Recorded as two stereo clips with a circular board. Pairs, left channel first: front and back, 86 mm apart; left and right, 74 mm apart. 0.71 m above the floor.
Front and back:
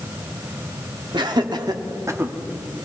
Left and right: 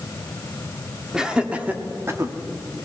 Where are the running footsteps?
I don't hear running footsteps.